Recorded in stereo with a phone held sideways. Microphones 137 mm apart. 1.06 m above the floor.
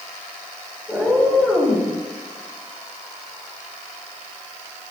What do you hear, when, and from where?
0.9 s a cat meowing: 5° left (ahead or behind), 8 m